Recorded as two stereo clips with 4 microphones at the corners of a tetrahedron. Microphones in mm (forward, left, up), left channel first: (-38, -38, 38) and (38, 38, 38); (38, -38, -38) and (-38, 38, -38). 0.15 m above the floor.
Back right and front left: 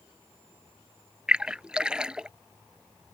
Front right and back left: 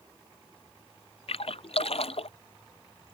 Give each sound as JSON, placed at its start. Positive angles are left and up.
{"t": 1.3, "sound": "a splash", "azimuth_deg": -35}